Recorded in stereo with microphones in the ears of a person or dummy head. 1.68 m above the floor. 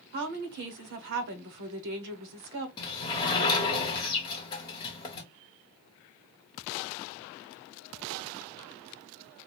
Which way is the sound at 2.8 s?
20° left (ahead or behind).